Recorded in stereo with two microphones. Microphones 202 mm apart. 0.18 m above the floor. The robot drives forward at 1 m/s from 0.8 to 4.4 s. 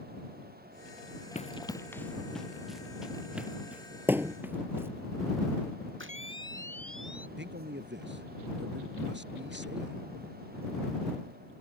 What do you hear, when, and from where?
1.4 s running footsteps: 35° left (ahead or behind); by 4.9 s 10° right (ahead or behind)
4.1 s a thud: 10° right (ahead or behind)
6.0 s a camera shutter: 75° right (ahead or behind)
7.4 s a man speaking: 65° right (ahead or behind)